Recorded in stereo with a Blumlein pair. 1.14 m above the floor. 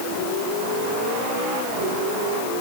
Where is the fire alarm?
I don't hear a fire alarm.